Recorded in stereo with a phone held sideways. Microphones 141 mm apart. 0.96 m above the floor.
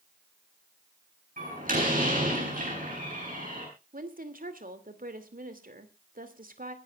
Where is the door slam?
75° right (ahead or behind), 8.5 m.